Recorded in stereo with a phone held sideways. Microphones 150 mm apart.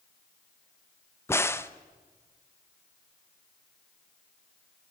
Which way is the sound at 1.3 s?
15° left (ahead or behind).